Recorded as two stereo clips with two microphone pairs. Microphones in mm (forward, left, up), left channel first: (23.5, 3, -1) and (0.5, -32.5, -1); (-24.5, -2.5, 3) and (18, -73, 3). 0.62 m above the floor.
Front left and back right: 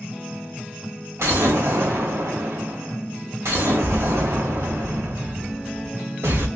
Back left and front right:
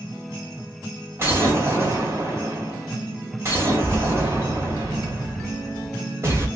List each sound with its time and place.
1.2 s an explosion: 120° right, 2.0 m